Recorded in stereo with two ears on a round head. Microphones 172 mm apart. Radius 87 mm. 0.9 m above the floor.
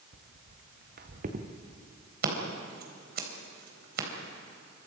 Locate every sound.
0.1 s footsteps: 60° right (ahead or behind), 3 m; by 1.5 s 40° right (ahead or behind), 3 m
2.2 s scissors: 55° right (ahead or behind), 3.5 m